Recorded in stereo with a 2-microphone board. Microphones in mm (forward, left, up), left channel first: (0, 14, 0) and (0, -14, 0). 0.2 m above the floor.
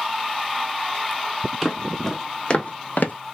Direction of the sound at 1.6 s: Centre (ahead or behind).